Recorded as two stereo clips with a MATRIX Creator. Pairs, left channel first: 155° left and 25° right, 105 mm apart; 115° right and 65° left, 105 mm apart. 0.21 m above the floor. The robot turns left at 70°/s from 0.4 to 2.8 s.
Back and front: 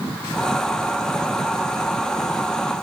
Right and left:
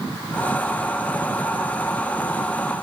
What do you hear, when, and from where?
Only background noise.